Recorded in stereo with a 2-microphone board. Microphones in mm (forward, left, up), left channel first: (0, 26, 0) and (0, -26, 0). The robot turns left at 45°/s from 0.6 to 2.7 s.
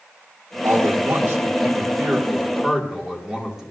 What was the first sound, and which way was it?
A man speaking, 75° right.